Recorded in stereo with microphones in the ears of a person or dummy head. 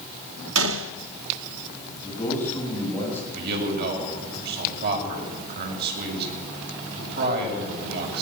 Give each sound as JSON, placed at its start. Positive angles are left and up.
{"t": 0.6, "sound": "a gunshot", "side_deg": -80, "distance_m": 1.2}
{"t": 2.0, "sound": "a man speaking", "side_deg": 15, "distance_m": 9.0}
{"t": 3.3, "sound": "a man speaking", "side_deg": -60, "distance_m": 7.5}